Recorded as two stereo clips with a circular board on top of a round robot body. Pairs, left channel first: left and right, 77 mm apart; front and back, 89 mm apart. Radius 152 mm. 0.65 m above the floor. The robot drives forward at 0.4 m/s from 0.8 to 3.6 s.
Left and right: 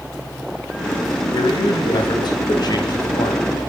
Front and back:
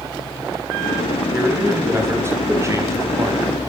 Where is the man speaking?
115° left, 4.5 m; by 3.4 s 125° left, 4.5 m.